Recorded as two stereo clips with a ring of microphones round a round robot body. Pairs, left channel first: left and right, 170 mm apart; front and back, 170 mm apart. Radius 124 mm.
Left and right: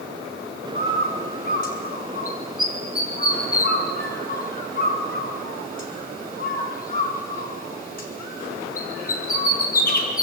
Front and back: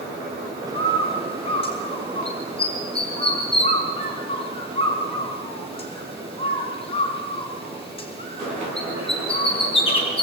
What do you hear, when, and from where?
0.8 s a bird: 55° left, 5.5 m